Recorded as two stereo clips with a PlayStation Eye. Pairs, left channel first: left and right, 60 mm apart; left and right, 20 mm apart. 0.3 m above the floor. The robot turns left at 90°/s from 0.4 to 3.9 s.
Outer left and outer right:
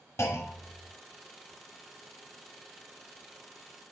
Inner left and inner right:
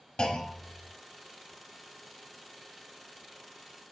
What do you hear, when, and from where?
0.2 s a clunk: 90° left, 0.6 m; by 0.9 s 45° left, 0.6 m